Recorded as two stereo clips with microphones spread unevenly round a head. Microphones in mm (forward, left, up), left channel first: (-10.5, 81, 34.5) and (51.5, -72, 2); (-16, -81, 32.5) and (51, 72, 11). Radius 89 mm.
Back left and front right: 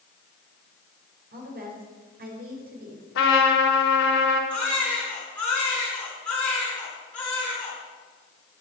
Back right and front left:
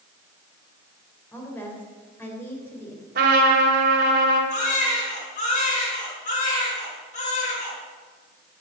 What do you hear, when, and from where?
1.3 s a woman speaking: 35° right, 4 m
3.1 s a trumpet: 105° left, 4 m
4.5 s a baby crying: 165° right, 5.5 m